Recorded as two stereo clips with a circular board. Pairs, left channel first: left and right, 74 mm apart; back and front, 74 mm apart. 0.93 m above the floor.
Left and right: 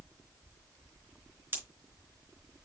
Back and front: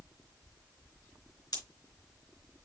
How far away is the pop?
About 4 m.